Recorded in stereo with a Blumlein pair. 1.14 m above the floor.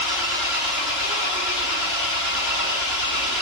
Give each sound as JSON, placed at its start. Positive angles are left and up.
{"t": 0.0, "sound": "an engine running", "azimuth_deg": 35, "distance_m": 7.0}